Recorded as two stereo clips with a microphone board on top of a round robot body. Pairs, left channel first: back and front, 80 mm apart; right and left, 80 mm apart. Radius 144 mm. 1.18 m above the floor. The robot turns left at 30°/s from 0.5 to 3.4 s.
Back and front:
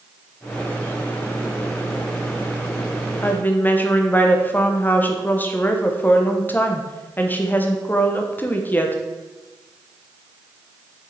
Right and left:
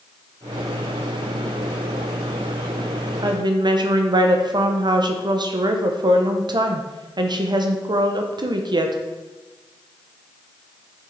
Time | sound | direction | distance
3.2 | a woman speaking | 120° left | 1.1 m